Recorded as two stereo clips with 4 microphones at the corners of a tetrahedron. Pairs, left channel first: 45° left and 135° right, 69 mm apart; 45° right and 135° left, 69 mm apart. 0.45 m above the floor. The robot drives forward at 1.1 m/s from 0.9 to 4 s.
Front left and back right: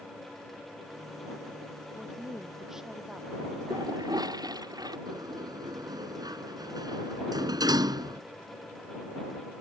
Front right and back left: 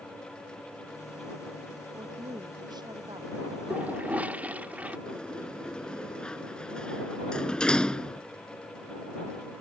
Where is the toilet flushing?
155° right.